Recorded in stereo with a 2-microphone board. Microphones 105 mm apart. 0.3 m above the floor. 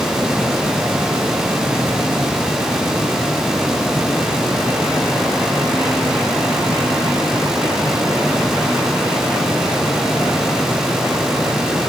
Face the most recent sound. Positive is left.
No sound to turn to.